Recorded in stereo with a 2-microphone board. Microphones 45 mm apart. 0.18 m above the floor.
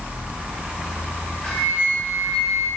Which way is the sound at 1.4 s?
25° left (ahead or behind).